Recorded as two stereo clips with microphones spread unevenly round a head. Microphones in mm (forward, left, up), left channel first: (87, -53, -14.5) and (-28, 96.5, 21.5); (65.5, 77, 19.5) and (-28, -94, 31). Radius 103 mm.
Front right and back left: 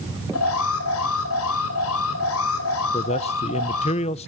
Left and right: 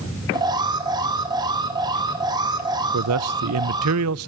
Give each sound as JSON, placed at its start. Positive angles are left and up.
{"t": 0.3, "sound": "an alarm", "azimuth_deg": -50, "distance_m": 4.0}
{"t": 2.9, "sound": "a man speaking", "azimuth_deg": -115, "distance_m": 0.7}